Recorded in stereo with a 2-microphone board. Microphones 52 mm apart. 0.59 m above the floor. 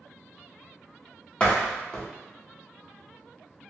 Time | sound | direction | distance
1.4 | a door slam | 25° left (ahead or behind) | 0.7 m